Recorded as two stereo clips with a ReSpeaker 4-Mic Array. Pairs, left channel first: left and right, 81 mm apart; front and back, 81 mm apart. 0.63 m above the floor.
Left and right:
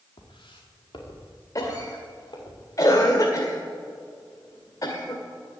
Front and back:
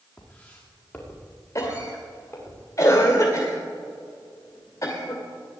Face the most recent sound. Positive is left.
turn(degrees=45)